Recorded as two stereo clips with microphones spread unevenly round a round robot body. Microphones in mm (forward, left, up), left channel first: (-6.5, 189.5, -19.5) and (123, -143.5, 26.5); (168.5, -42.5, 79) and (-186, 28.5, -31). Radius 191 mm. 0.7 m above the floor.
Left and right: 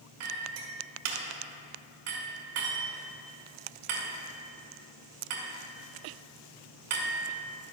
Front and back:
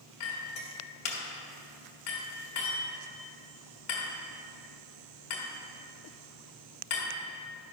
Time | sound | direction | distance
0.2 | a clink | 55° right | 1.7 m